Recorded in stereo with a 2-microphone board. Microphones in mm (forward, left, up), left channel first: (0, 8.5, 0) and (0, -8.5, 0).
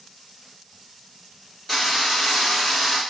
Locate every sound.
1.7 s a drill: centre (ahead or behind), 2 m